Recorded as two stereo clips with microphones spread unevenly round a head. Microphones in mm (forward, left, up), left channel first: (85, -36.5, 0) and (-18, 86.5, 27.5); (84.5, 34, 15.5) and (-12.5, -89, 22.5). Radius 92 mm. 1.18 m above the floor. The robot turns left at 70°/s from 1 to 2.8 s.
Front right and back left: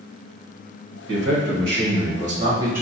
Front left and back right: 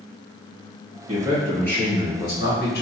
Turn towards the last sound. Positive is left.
turn(degrees=50)